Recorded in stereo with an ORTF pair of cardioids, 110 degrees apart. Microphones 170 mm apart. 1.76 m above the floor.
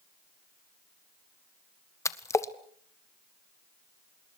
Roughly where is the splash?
Ahead.